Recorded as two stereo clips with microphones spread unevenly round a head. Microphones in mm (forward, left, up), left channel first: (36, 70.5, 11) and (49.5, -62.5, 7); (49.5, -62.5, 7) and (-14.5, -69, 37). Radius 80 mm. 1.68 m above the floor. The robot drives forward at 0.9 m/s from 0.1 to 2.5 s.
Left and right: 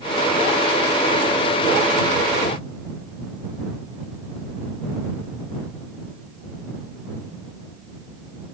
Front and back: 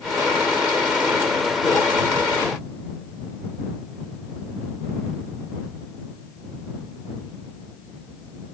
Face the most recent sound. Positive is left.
No sound to turn to.